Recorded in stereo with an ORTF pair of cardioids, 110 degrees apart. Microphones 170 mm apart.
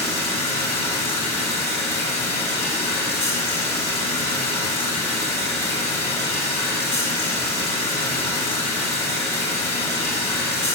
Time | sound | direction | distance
0.0 | running water | 40° left | 3.5 m